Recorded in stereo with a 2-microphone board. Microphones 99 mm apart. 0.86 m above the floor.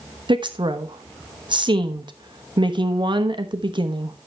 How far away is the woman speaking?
About 1.0 m.